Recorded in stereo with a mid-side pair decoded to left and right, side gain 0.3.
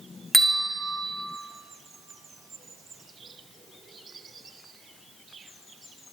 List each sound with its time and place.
0.3 s a bell: 20° right, 2.5 m